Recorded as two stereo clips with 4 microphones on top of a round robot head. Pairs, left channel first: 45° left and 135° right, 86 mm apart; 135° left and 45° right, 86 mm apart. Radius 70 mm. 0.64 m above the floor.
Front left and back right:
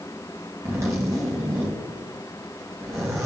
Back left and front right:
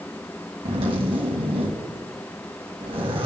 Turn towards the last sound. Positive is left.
turn(degrees=-75)